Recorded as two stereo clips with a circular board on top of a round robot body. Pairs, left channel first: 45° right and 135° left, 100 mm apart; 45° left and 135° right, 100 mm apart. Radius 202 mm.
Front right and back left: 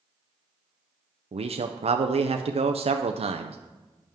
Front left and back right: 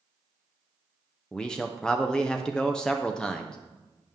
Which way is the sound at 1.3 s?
125° left.